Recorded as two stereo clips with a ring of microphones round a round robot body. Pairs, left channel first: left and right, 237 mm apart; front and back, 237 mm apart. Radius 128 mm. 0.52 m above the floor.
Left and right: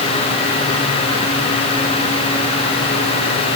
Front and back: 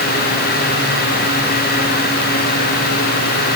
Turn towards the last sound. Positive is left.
No sound to turn to.